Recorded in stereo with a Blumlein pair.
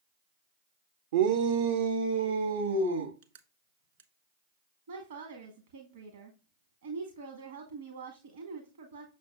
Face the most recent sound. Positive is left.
turn(degrees=-65)